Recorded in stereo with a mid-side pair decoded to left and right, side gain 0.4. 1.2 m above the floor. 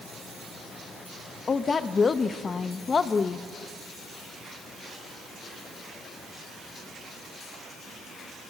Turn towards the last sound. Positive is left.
turn(degrees=40)